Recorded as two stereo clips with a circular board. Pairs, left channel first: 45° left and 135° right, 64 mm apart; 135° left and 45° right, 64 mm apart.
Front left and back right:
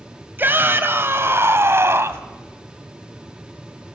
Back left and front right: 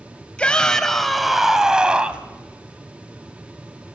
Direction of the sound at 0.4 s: 165° right.